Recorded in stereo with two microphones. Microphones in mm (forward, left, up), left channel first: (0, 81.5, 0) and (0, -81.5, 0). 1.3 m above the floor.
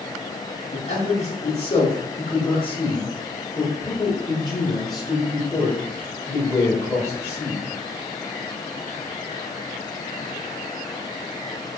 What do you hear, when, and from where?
0.7 s a man speaking: 45° left (ahead or behind), 4.5 m; by 7.6 s 20° left (ahead or behind), 8 m